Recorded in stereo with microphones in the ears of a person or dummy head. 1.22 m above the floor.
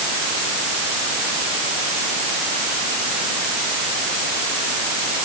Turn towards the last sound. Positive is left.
No sound to turn to.